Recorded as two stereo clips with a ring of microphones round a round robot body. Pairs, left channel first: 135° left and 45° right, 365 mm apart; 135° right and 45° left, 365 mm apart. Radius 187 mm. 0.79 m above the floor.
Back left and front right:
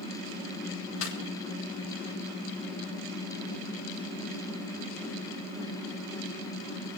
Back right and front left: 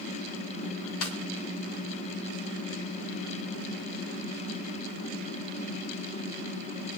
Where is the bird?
No bird in this recording.